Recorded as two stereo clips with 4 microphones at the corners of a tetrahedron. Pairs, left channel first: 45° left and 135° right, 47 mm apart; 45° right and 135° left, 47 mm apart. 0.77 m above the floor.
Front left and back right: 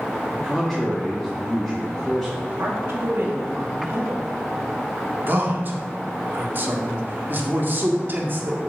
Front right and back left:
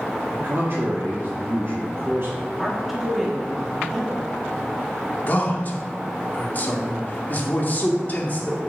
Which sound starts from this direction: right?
A man speaking, at 5.3 s.